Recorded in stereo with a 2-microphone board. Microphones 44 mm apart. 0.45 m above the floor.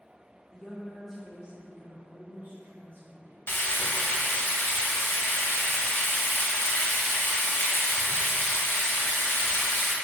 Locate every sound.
0.5 s a woman speaking: 20° left (ahead or behind), 1.0 m; by 3.4 s 60° right (ahead or behind), 2 m
3.5 s frying: 60° left (ahead or behind), 0.6 m